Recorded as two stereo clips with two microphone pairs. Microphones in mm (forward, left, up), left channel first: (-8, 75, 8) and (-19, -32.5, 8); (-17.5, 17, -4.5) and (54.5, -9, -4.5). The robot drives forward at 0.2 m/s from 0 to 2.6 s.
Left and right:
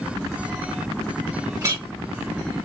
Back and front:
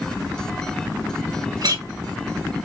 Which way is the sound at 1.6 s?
40° right.